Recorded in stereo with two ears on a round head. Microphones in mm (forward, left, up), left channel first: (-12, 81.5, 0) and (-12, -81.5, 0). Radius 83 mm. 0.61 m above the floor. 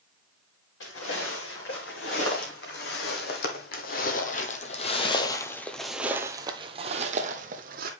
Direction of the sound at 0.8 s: 75° left (ahead or behind).